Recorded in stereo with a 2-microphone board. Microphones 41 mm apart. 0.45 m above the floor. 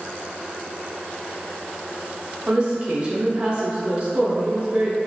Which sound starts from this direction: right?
A woman speaking, at 2.5 s.